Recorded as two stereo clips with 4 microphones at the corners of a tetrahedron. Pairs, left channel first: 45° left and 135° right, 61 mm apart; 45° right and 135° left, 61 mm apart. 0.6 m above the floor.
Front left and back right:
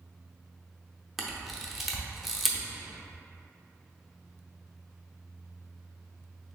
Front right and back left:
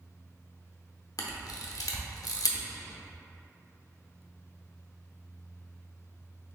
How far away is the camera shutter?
About 0.6 m.